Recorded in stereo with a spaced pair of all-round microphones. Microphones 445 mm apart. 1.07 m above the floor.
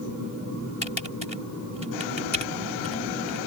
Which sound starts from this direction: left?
Typing on a keyboard, at 0.8 s.